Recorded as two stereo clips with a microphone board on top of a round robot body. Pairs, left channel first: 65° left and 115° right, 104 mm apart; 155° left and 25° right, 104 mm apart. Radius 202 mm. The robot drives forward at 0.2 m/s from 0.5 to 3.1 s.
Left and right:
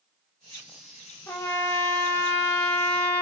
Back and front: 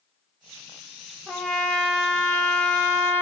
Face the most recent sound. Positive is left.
turn(degrees=120)